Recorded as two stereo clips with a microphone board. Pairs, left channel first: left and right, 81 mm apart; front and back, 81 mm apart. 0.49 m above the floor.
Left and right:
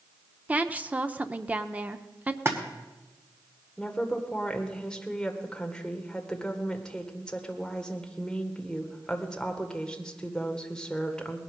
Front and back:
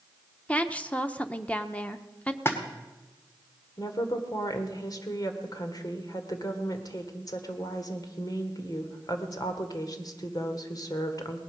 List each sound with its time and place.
0.5 s a woman speaking: 50° right, 0.8 m
2.5 s a splash: 45° right, 1.8 m
3.8 s a woman speaking: 10° left, 1.8 m